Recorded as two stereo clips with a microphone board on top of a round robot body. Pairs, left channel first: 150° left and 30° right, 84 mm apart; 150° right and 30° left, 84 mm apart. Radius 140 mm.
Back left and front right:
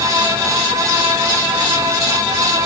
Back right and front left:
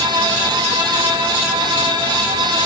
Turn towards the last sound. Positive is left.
No sound to turn to.